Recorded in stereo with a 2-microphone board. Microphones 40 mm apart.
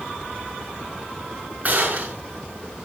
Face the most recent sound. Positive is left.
turn(degrees=-45)  # may be behind; listen again after turning